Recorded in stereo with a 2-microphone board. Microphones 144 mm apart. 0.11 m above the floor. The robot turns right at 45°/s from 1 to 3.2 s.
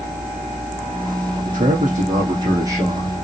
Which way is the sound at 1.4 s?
85° right.